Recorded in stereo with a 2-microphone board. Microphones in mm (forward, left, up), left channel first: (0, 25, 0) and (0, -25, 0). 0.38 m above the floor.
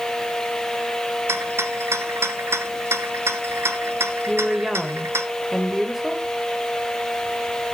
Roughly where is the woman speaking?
Centre.